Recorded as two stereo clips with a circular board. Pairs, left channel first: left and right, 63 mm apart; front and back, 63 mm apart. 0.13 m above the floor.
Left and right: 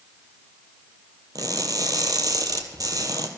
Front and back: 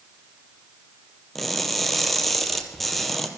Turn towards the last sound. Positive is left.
turn(degrees=-85)